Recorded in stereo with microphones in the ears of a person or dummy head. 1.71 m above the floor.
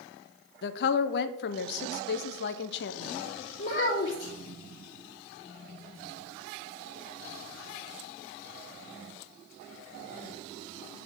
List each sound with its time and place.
0.6 s a woman speaking: 55° left (ahead or behind), 0.7 m
3.6 s a child speaking: 40° left (ahead or behind), 1.9 m